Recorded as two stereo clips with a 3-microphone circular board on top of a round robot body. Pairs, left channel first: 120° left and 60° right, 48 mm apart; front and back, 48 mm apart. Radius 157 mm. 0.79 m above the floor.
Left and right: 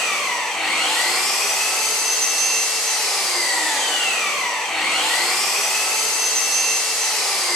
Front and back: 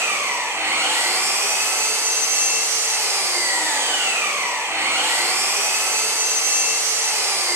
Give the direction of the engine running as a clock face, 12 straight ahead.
5 o'clock.